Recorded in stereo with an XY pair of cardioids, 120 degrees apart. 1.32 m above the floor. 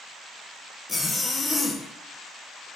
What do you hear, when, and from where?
0.9 s a zipper: 25° left, 0.9 m